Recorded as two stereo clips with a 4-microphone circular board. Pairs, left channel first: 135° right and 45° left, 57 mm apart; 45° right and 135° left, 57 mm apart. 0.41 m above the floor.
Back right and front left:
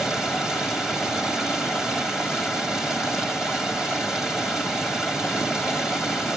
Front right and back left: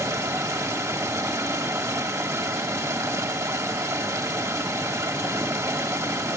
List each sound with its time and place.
0.0 s running water: 125° left, 1.8 m